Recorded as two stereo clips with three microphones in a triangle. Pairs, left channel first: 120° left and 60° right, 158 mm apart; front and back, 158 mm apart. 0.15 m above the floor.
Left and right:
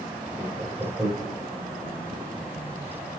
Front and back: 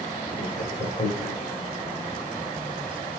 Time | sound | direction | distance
0.4 | laughter | 20° left | 4.5 m